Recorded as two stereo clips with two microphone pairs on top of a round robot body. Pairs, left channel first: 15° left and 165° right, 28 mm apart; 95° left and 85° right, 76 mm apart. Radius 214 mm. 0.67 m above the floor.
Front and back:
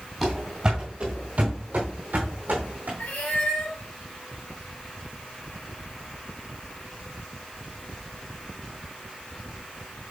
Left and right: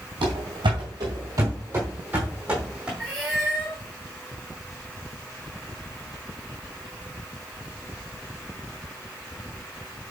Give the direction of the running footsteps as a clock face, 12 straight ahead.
3 o'clock.